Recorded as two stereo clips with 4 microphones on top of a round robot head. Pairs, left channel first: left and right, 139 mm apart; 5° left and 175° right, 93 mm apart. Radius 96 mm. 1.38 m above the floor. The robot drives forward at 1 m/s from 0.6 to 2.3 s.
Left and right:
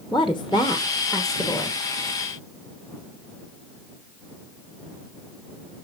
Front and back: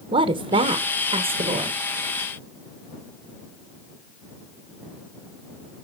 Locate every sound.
0.1 s a woman speaking: straight behind, 1.0 m